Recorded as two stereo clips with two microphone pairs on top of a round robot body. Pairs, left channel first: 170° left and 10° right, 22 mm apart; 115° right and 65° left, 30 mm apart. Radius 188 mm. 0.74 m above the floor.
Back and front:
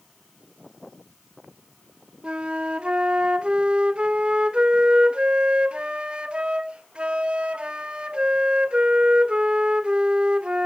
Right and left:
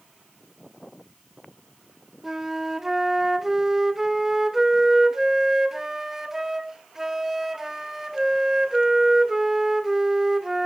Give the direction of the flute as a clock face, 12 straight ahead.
12 o'clock.